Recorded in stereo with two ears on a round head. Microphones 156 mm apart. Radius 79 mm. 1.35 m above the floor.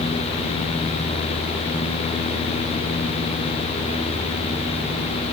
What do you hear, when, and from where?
Only background noise.